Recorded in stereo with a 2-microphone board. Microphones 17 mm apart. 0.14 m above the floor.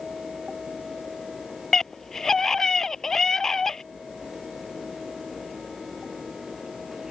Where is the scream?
30° left (ahead or behind).